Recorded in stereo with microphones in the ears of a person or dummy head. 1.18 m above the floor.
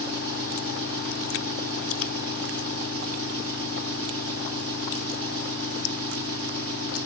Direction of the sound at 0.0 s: 30° right (ahead or behind).